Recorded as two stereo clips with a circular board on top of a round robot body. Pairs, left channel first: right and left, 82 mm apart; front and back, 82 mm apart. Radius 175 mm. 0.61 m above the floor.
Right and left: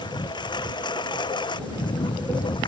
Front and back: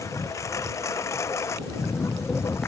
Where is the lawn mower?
55° right; by 2.7 s 60° right.